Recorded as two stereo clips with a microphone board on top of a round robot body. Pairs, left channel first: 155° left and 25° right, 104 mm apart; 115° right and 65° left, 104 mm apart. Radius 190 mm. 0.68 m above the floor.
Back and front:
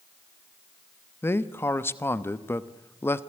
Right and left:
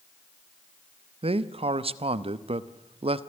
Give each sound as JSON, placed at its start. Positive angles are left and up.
{"t": 1.2, "sound": "a man speaking", "azimuth_deg": 90, "distance_m": 1.1}